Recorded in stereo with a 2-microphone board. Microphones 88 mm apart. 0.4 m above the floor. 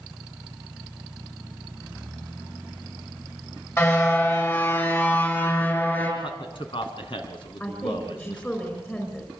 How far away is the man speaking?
About 4 m.